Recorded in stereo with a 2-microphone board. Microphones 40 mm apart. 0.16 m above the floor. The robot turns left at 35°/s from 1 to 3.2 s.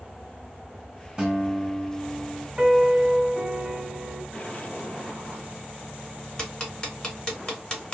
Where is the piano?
20° right (ahead or behind), 1.0 m.